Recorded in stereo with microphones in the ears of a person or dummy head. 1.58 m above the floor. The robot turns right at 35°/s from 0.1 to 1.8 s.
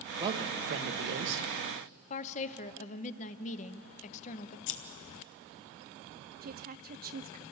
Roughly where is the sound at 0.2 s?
Behind right.